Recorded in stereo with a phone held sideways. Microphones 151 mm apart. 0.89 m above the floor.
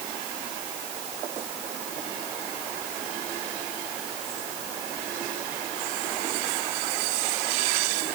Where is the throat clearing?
No throat clearing in this recording.